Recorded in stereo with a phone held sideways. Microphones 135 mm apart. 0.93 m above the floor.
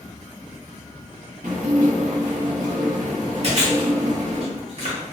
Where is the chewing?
50° right (ahead or behind), 1.1 m.